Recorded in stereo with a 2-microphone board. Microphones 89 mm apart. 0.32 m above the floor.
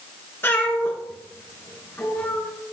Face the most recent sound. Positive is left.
turn(degrees=25)  # may be behind; listen again after turning